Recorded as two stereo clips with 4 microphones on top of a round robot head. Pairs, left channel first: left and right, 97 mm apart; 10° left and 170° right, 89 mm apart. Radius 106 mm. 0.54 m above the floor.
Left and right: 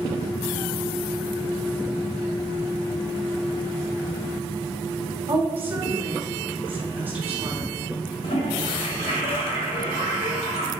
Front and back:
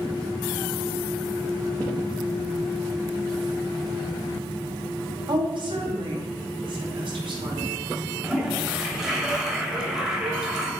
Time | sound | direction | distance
5.3 | a woman speaking | 160° right | 2.5 m
8.2 | a toilet flushing | 105° left | 2.5 m